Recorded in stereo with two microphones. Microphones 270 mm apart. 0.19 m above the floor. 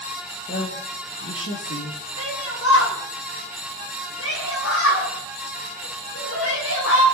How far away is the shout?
About 9.5 m.